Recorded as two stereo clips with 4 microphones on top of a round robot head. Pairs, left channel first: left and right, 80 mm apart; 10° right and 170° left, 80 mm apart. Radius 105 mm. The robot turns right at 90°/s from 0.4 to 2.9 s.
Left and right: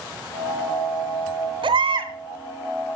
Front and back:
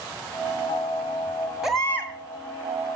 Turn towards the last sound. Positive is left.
turn(degrees=10)